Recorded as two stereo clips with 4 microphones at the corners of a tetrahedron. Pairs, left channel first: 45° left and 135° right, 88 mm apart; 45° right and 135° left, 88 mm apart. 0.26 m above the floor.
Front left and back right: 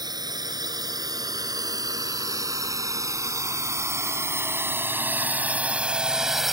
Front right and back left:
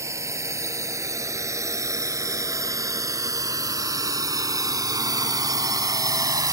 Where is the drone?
175° right; by 6.5 s 140° left.